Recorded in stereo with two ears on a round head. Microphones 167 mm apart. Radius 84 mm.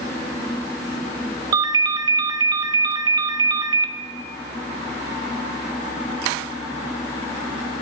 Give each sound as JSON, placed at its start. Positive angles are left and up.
{"t": 1.5, "sound": "a ringtone", "side_deg": -20, "distance_m": 0.5}